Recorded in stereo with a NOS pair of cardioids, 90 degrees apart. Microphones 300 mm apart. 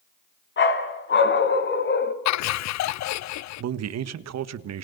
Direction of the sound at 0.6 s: 40° left.